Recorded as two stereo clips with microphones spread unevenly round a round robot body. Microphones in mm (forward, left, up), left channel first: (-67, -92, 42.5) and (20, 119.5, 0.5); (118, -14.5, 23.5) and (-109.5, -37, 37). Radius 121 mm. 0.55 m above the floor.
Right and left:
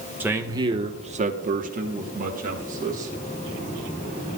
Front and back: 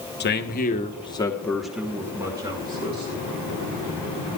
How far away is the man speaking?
About 1.3 m.